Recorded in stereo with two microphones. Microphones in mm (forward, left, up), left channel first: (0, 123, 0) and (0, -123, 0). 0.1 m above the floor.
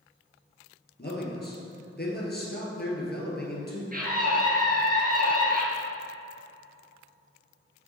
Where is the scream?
35° right (ahead or behind), 1.8 m.